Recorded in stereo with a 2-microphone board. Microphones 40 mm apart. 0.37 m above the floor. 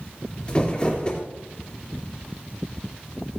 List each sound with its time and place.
0.5 s crumpling: 25° left (ahead or behind), 3 m